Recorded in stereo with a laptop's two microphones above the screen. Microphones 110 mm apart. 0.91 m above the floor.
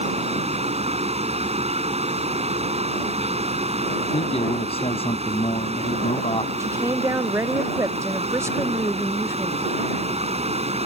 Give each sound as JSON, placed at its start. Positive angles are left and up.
{"t": 0.0, "sound": "a fan", "side_deg": -75}
{"t": 4.1, "sound": "a man speaking", "side_deg": 60}
{"t": 6.6, "sound": "a woman speaking", "side_deg": -25}